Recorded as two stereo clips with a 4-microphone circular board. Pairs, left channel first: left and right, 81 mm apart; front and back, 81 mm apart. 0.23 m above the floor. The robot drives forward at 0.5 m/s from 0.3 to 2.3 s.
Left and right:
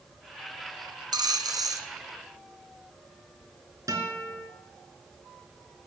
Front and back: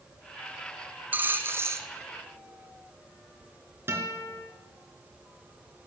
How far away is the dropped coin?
About 1.2 m.